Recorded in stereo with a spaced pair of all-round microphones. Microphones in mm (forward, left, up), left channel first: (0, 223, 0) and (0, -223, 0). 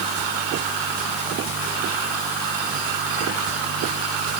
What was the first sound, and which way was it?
Only background noise.